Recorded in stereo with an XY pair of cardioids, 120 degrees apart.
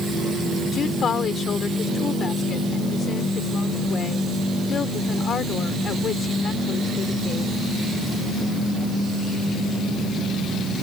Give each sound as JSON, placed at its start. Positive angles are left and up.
{"t": 0.7, "sound": "a woman speaking", "azimuth_deg": 40}